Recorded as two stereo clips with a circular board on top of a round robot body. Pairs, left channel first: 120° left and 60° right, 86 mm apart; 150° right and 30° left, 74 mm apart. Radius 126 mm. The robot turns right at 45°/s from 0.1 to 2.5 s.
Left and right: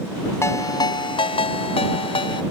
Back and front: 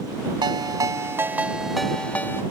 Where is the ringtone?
60° left; by 2.4 s 150° left.